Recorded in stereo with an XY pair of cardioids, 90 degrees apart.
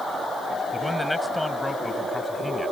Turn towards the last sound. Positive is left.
turn(degrees=15)